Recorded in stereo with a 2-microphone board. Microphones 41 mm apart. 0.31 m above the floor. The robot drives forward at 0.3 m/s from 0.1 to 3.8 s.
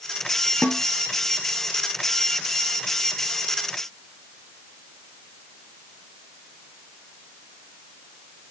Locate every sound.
0.6 s a snare drum: 40° left (ahead or behind), 1.0 m; by 0.8 s 35° left (ahead or behind), 1.1 m